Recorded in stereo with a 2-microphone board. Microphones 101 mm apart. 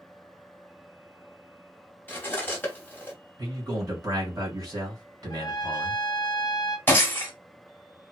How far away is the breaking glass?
About 1.1 m.